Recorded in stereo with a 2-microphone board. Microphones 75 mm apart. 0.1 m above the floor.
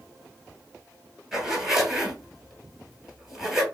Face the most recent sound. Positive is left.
turn(degrees=-10)  # may be behind; listen again after turning